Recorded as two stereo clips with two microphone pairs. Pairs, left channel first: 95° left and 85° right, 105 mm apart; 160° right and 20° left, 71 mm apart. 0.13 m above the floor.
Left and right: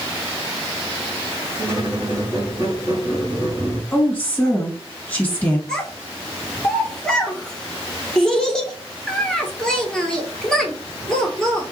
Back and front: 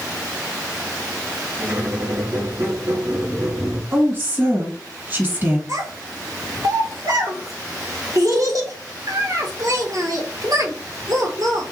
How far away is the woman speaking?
About 1.6 m.